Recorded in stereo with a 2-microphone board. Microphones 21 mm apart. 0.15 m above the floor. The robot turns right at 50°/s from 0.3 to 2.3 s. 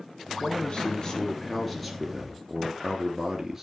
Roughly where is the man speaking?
Left.